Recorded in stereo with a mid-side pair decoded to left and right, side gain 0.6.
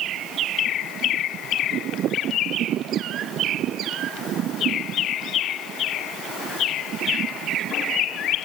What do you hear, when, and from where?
Only background noise.